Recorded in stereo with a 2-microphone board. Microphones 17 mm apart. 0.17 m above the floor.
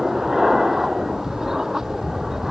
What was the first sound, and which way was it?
An aircraft, 30° right (ahead or behind).